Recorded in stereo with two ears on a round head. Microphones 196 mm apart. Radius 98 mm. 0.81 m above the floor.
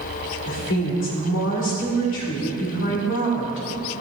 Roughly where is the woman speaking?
Left.